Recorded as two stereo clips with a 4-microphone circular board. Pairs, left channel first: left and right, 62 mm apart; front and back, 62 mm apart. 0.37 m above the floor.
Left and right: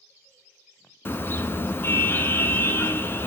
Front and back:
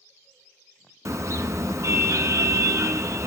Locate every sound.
1.1 s a car horn: 145° left, 2 m